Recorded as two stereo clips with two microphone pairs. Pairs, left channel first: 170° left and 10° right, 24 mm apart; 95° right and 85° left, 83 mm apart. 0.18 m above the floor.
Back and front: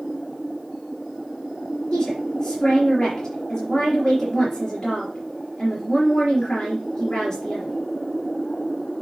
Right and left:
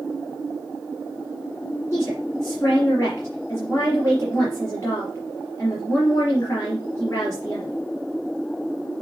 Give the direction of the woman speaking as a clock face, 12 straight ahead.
5 o'clock.